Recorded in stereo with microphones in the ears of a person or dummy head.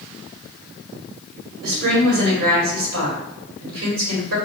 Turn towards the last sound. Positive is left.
turn(degrees=-75)  # may be behind; listen again after turning